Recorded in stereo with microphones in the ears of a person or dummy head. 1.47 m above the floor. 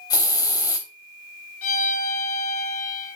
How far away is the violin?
About 1.7 m.